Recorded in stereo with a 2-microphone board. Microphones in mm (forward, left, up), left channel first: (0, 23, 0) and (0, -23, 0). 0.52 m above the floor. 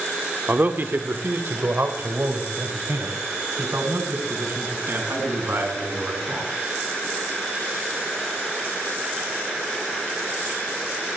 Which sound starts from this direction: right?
A man speaking, at 0.5 s.